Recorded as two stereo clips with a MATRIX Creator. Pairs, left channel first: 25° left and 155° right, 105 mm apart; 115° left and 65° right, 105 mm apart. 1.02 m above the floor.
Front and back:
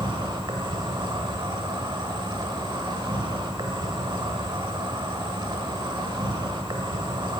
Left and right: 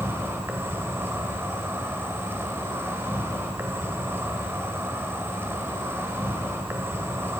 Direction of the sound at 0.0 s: 130° right.